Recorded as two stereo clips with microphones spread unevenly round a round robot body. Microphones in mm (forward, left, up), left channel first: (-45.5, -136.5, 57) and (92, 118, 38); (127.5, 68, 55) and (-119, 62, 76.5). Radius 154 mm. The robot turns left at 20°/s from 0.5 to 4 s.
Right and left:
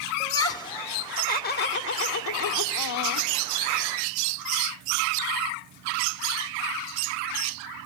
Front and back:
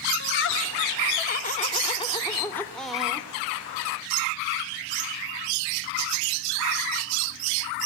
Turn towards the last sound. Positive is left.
turn(degrees=-110)